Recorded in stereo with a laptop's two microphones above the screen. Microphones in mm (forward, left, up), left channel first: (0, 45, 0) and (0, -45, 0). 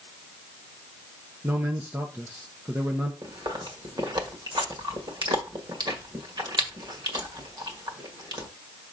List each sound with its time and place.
1.4 s a man speaking: 25° right (ahead or behind), 1.0 m
3.2 s chewing: 55° right (ahead or behind), 1.6 m